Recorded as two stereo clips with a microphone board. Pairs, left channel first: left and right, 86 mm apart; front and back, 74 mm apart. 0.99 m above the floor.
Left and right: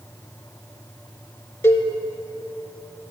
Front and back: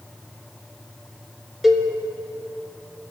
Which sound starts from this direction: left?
A cowbell, at 1.6 s.